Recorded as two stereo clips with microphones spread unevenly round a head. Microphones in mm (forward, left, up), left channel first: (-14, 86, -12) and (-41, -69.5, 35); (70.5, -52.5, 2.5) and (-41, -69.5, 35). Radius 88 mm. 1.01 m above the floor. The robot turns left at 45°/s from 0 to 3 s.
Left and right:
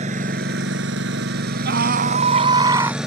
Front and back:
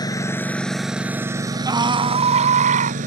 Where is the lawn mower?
50° right; by 3.1 s 175° left.